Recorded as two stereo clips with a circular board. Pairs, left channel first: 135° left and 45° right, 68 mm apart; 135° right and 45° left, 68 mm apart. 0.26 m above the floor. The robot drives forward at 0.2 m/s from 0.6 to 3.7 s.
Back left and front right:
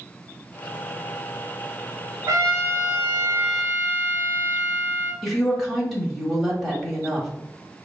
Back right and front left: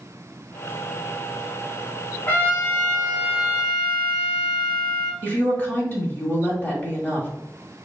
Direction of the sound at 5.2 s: 135° right.